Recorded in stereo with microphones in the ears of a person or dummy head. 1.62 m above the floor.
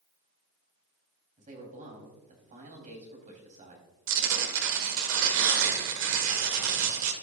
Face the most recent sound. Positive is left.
turn(degrees=-70)  # may be behind; listen again after turning